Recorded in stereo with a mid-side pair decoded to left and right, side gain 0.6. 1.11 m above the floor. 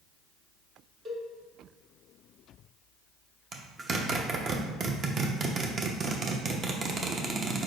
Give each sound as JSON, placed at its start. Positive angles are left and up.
{"t": 1.1, "sound": "a cowbell", "azimuth_deg": -45, "distance_m": 1.2}
{"t": 3.5, "sound": "a zipper", "azimuth_deg": -40, "distance_m": 0.7}